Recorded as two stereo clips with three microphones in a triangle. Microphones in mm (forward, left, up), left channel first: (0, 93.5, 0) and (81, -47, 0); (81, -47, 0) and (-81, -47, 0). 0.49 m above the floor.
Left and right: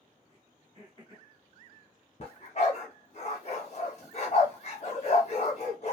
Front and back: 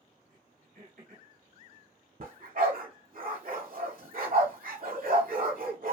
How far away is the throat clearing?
About 1.6 m.